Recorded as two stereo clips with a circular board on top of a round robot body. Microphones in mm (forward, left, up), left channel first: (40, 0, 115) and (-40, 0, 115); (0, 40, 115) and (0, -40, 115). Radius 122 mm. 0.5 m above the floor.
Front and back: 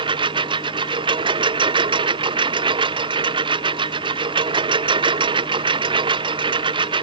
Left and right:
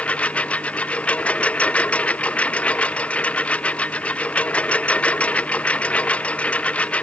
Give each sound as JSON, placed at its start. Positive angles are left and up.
{"t": 0.0, "sound": "a lawn mower", "azimuth_deg": 165}